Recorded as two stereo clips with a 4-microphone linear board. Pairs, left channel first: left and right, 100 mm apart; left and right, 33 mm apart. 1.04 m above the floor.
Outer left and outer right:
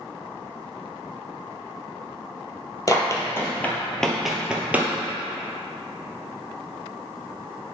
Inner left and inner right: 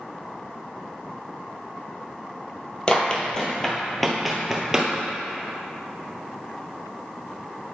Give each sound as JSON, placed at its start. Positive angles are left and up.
{"t": 2.9, "sound": "running footsteps", "side_deg": 30, "distance_m": 1.3}